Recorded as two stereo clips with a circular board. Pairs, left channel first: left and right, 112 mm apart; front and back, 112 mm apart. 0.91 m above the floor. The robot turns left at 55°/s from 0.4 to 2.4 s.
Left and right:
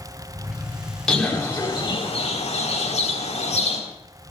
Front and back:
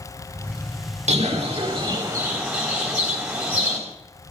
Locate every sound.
1.1 s a bird: 175° left, 3.5 m; by 3.8 s 100° left, 3.5 m